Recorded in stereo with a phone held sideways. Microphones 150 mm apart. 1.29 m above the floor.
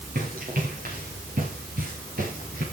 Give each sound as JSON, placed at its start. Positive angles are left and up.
{"t": 0.1, "sound": "running footsteps", "side_deg": -80, "distance_m": 8.0}